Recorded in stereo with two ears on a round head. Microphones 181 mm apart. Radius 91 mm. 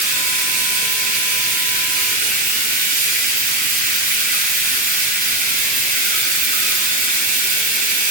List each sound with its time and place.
0.0 s running water: 45° right (ahead or behind), 2 m